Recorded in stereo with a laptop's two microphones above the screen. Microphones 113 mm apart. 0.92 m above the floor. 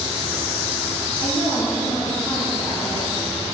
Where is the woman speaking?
35° left (ahead or behind), 1.7 m.